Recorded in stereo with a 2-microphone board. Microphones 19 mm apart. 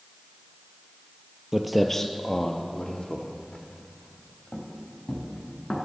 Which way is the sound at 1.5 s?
15° right (ahead or behind).